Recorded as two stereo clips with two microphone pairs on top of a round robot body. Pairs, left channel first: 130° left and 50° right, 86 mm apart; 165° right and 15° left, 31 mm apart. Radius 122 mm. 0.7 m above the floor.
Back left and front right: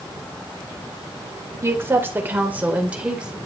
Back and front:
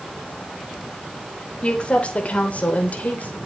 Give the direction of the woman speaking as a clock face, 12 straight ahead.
4 o'clock.